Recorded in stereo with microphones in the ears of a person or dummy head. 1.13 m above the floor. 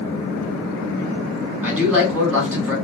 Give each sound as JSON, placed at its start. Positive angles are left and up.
{"t": 1.6, "sound": "a man speaking", "side_deg": -10, "distance_m": 1.7}